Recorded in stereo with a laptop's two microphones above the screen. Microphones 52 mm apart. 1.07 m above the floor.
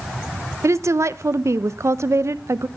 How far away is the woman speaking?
About 0.8 m.